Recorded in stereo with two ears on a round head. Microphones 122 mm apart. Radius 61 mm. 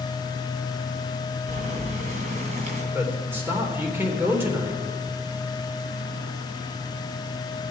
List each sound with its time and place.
1.5 s boiling: 55° right (ahead or behind), 2.5 m
2.9 s a man speaking: 15° right (ahead or behind), 3 m